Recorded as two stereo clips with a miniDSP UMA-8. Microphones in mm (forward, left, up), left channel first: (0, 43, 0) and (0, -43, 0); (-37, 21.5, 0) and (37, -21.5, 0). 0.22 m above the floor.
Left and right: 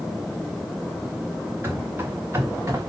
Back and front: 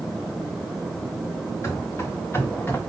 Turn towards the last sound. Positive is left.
turn(degrees=-145)